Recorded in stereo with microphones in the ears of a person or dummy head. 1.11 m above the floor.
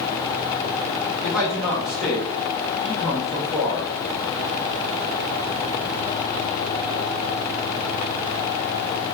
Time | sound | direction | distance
1.2 | a man speaking | centre (ahead or behind) | 0.6 m